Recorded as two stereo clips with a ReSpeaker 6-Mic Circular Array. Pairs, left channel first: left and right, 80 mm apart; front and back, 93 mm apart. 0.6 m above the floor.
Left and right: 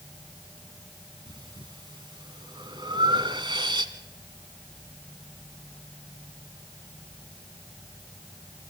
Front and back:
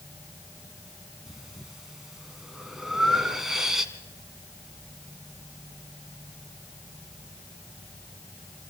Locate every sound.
1.3 s breathing: 95° right, 1.2 m